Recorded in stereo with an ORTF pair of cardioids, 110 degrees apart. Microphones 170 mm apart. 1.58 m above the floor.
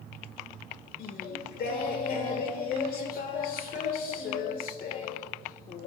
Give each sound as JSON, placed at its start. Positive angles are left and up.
{"t": 1.0, "sound": "singing", "azimuth_deg": 60, "distance_m": 1.5}